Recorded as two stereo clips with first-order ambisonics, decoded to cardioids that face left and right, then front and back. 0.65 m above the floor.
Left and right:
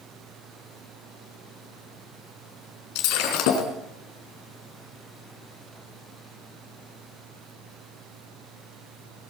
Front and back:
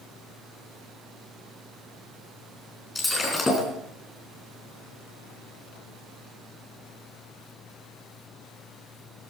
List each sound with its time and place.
3.0 s breaking glass: 80° left, 4 m